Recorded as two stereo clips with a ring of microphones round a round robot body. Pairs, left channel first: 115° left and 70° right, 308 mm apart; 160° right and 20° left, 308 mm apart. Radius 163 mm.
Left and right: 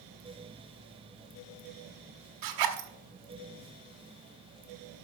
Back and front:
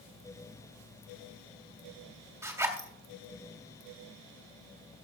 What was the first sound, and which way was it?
A zipper, 60° right.